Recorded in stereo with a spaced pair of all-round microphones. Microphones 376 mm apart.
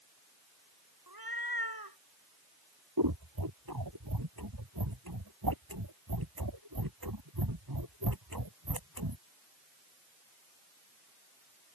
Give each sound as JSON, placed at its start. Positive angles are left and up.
{"t": 1.1, "sound": "a cat meowing", "side_deg": -80}
{"t": 3.0, "sound": "scissors", "side_deg": -80}